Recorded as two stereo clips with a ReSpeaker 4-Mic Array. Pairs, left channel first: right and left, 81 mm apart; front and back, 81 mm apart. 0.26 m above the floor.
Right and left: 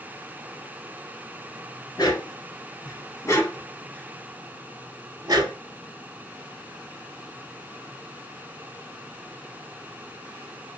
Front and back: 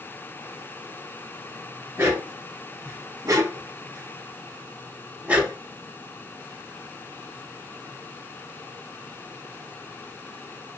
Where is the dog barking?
125° right, 1.6 m; by 5.6 s 105° left, 0.8 m.